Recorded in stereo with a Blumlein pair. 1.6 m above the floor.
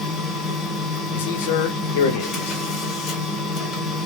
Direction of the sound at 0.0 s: 25° left.